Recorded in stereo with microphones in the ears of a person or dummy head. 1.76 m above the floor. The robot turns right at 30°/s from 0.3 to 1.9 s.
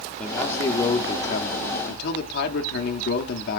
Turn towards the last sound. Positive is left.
turn(degrees=55)